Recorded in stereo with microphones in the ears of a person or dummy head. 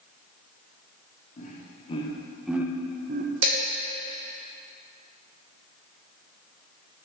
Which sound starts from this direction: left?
Laughter, at 1.4 s.